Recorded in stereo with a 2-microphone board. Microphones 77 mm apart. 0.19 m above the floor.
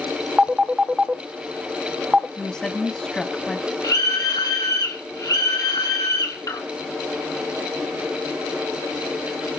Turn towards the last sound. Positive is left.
turn(degrees=45)  # may be behind; listen again after turning